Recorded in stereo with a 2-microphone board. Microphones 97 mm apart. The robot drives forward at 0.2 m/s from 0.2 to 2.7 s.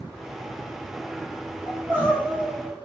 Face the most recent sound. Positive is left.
turn(degrees=-20)  # may be behind; listen again after turning